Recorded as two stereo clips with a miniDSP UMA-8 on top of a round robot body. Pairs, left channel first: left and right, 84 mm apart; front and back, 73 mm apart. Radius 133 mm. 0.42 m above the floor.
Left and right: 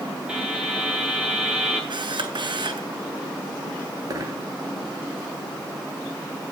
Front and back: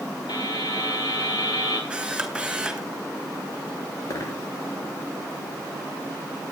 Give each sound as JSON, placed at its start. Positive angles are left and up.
{"t": 0.3, "sound": "a buzzer", "azimuth_deg": -10, "distance_m": 8.5}
{"t": 1.9, "sound": "a camera shutter", "azimuth_deg": -105, "distance_m": 3.5}
{"t": 4.1, "sound": "a dropped coin", "azimuth_deg": -45, "distance_m": 3.5}